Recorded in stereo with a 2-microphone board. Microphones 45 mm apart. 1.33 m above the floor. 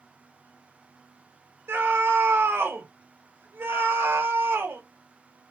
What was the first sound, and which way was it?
A scream, 70° right (ahead or behind).